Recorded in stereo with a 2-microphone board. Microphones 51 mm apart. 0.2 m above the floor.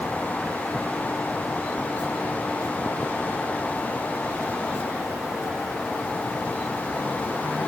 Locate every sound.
Only background noise.